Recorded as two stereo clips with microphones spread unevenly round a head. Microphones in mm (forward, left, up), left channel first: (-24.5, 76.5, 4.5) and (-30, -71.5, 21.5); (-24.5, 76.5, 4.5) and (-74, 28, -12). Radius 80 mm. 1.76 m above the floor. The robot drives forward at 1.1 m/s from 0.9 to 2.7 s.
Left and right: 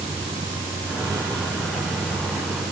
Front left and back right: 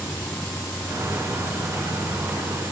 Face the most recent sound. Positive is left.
turn(degrees=-20)